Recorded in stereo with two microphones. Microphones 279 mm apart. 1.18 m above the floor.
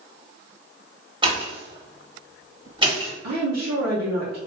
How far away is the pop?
About 1.2 m.